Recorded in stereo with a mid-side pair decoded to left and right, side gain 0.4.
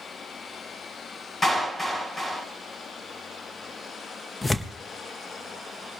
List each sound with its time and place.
1.4 s a clap: 30° left, 7.5 m
4.4 s tearing paper: 30° left, 1.0 m